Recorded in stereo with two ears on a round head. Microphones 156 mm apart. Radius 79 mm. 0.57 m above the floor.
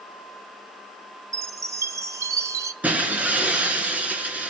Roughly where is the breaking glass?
Centre.